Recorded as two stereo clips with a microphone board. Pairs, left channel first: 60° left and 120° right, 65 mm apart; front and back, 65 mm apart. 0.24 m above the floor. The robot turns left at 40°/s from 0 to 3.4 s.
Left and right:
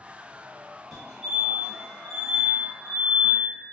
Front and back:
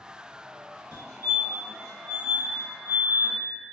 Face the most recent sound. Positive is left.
turn(degrees=50)